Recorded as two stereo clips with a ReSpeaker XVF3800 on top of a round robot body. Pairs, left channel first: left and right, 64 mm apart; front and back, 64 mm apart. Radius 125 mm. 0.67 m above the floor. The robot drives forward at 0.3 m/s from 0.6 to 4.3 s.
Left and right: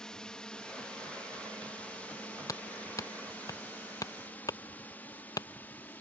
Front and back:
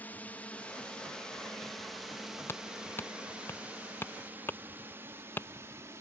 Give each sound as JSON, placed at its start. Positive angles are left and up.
{"t": 0.0, "sound": "a drone", "azimuth_deg": 25}
{"t": 2.5, "sound": "hammering", "azimuth_deg": 60}